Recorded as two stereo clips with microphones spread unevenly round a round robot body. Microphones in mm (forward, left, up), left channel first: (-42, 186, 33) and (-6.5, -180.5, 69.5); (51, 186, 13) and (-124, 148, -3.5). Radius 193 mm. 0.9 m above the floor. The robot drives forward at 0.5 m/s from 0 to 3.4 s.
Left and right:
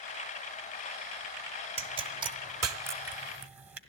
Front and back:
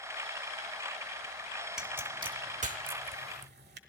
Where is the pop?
70° right, 0.6 m; by 3.8 s 165° right, 1.0 m.